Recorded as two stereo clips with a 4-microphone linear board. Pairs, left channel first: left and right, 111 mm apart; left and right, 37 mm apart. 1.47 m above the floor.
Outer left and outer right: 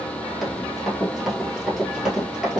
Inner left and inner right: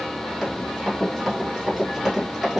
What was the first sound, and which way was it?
Running footsteps, centre (ahead or behind).